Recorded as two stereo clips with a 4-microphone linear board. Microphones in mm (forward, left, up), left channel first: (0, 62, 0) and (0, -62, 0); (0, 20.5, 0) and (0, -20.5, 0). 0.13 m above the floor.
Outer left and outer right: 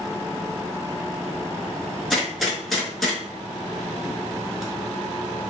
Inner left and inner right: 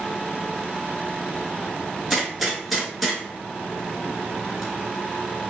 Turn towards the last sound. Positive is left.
turn(degrees=0)  # may be behind; listen again after turning